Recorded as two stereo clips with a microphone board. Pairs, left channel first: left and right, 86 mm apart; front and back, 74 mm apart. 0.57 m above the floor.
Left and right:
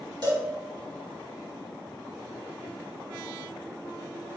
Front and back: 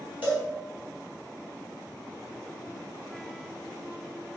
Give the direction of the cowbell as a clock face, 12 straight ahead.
4 o'clock.